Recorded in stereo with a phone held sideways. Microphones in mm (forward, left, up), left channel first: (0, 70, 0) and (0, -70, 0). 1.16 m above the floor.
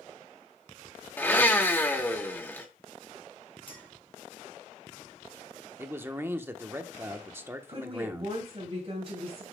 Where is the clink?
35° left (ahead or behind), 2 m.